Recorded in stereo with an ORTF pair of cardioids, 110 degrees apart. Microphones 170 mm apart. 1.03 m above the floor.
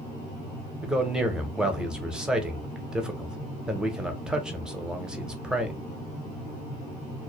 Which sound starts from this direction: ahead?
A man speaking, at 0.8 s.